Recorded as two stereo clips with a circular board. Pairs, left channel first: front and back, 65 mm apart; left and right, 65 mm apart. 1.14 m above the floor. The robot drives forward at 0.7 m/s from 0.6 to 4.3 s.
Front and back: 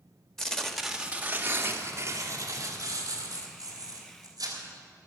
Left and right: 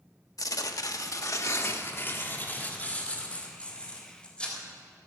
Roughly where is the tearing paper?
Left.